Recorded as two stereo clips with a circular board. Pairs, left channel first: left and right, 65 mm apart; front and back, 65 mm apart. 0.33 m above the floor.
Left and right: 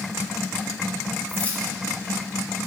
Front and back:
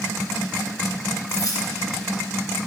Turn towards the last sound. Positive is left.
turn(degrees=25)